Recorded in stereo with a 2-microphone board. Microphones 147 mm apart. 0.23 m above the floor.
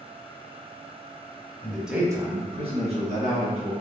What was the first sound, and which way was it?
A man speaking, 15° left (ahead or behind).